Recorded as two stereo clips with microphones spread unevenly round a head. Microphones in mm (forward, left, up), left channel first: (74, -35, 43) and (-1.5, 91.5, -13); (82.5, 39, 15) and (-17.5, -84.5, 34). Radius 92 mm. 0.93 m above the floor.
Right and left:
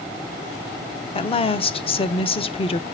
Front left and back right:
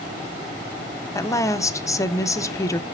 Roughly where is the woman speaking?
Ahead.